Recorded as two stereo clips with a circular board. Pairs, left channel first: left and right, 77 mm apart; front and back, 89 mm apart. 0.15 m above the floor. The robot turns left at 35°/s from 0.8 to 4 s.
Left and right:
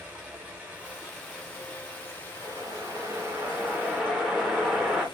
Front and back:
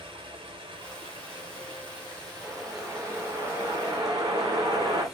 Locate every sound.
0.0 s running water: 160° right, 0.9 m; by 5.2 s 85° left, 0.9 m
2.4 s a whoosh: 110° right, 1.0 m; by 5.0 s 170° right, 1.0 m